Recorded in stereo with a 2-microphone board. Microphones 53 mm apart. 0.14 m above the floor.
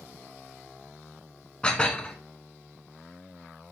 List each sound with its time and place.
1.6 s dishes clattering: 20° left (ahead or behind), 0.8 m